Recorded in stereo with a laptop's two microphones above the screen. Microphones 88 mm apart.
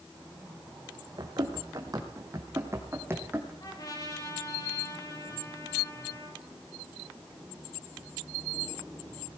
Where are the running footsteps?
45° right (ahead or behind), 3 m; by 3.5 s 20° right (ahead or behind), 3 m.